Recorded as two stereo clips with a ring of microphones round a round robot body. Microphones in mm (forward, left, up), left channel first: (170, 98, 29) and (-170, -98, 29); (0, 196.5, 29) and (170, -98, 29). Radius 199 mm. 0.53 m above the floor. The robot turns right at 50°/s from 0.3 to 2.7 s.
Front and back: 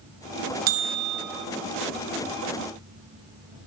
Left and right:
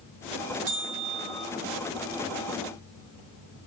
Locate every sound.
0.7 s a bell: 125° right, 0.5 m; by 1.5 s 85° right, 0.5 m